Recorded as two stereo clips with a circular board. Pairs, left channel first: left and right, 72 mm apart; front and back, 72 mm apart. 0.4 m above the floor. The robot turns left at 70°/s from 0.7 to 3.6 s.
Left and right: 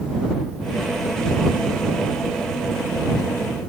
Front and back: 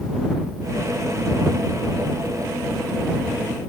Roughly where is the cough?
I don't hear a cough.